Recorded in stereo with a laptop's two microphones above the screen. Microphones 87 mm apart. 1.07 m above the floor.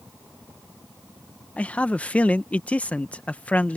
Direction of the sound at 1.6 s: 15° left (ahead or behind).